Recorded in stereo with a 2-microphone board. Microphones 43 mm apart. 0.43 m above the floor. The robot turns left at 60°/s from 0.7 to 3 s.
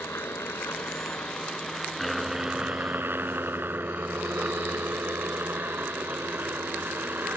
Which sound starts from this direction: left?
A helicopter, at 0.0 s.